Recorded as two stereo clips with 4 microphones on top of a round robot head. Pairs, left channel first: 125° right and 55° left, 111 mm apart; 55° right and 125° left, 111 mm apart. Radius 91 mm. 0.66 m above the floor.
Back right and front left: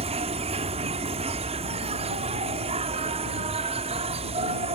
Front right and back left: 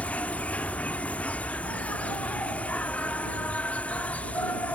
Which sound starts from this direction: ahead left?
An insect, at 0.0 s.